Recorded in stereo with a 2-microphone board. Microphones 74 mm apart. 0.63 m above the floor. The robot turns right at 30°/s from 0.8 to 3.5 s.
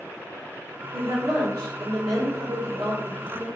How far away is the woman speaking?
About 1.9 m.